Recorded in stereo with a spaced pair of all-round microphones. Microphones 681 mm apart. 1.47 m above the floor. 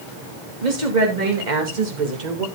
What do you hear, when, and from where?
0.6 s a woman speaking: 80° right, 3 m; by 2.5 s 70° right (ahead or behind), 1.8 m